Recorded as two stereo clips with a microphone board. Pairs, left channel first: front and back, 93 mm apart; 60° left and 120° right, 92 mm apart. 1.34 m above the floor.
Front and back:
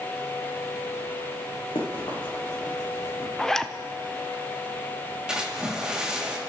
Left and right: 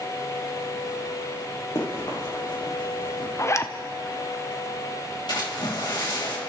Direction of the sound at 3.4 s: 80° left.